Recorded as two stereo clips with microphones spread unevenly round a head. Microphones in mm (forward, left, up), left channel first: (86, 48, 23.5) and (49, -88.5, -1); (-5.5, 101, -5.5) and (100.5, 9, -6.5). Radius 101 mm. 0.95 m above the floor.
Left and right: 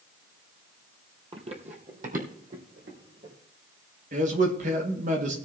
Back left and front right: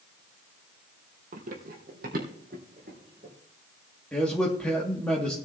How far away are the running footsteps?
About 1.7 m.